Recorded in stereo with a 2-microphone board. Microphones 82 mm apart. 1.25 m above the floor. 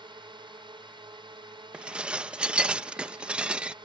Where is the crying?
No crying in this recording.